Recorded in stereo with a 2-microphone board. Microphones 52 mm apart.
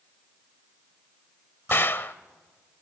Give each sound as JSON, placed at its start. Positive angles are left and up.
{"t": 1.7, "sound": "a gunshot", "side_deg": 45, "distance_m": 0.8}